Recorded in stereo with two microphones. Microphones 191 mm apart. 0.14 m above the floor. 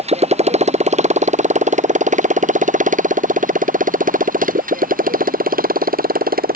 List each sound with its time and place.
0.0 s a motorcycle: 35° right (ahead or behind); by 6.6 s 50° right (ahead or behind)